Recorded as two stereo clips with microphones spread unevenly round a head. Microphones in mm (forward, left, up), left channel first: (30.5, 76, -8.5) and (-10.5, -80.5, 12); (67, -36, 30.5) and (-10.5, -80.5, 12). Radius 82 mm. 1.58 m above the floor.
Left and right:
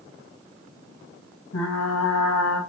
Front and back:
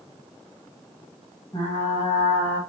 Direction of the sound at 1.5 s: 85° left.